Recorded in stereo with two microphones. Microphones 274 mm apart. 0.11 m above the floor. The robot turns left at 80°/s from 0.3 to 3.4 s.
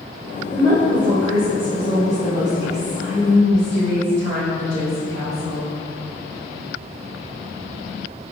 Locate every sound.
0.5 s a woman speaking: 20° right, 1.5 m; by 5.7 s 110° left, 1.5 m